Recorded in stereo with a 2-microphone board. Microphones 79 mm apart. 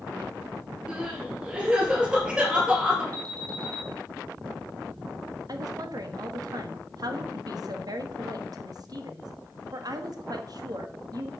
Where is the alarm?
50° right (ahead or behind), 2.5 m.